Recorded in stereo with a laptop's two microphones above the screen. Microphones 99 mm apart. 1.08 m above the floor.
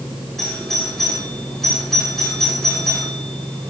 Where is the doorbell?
5° left (ahead or behind), 6 m.